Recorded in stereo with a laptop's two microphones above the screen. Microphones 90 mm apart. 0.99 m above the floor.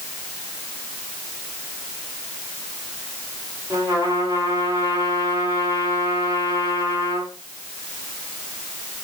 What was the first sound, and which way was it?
A trumpet, 35° right (ahead or behind).